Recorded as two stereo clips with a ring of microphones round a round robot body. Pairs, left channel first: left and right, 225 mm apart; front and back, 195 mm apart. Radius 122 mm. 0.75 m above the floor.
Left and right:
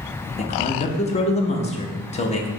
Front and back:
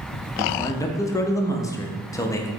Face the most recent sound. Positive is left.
turn(degrees=60)